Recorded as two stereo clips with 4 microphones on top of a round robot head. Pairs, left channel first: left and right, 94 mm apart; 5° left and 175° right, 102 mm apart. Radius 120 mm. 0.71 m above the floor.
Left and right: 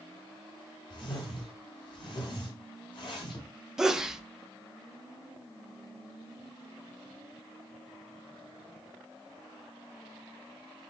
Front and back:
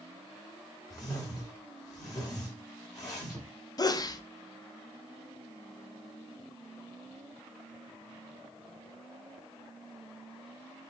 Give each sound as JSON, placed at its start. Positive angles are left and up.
{"t": 0.9, "sound": "a whoosh", "azimuth_deg": 55, "distance_m": 2.5}
{"t": 3.8, "sound": "a sneeze", "azimuth_deg": -10, "distance_m": 0.5}